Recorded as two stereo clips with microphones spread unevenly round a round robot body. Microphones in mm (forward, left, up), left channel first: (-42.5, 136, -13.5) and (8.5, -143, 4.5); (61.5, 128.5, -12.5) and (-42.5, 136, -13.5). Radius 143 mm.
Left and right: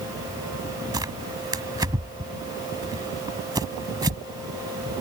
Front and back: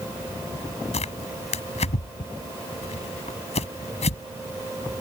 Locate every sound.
0.9 s tearing paper: straight ahead